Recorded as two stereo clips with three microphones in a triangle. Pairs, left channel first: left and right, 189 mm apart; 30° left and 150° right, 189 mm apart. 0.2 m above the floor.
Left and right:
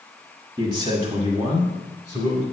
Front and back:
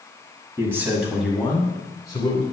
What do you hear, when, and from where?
0.6 s a man speaking: 100° right, 1.4 m; by 2.4 s 30° right, 2.0 m